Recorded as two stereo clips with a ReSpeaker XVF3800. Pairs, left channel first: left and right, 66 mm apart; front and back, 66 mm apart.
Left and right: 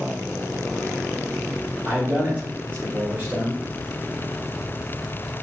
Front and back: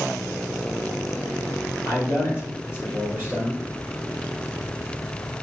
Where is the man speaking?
35° right, 2.5 m.